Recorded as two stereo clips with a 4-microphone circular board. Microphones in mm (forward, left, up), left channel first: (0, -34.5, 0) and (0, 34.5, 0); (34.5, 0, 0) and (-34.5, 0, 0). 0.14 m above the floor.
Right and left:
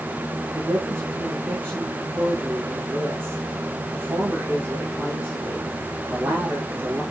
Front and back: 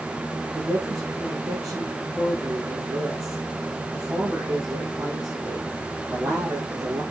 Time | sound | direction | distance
0.5 | a woman speaking | 145° left | 7 m